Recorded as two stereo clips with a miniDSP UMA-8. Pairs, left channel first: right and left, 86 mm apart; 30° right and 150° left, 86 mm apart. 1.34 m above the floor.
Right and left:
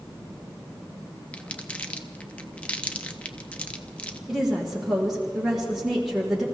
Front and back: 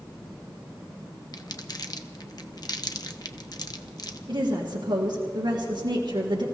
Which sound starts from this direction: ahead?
Crumpling, at 1.3 s.